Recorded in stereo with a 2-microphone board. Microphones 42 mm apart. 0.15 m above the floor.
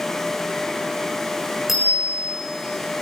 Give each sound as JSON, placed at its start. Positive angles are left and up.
{"t": 1.7, "sound": "a bicycle bell", "side_deg": -5, "distance_m": 6.5}